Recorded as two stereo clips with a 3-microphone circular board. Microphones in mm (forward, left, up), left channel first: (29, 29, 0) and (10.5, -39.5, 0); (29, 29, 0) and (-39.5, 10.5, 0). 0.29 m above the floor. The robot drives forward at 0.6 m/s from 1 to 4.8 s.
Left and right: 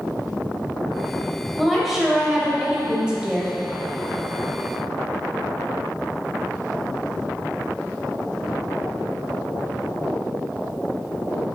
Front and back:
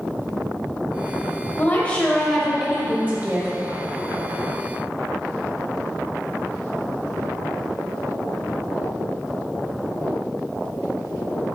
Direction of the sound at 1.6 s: 15° right.